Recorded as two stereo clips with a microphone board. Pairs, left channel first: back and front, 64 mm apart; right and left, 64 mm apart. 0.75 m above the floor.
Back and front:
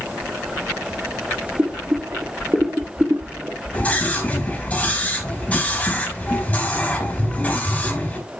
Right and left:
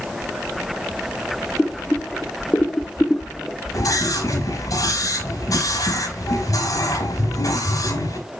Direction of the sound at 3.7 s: 110° right.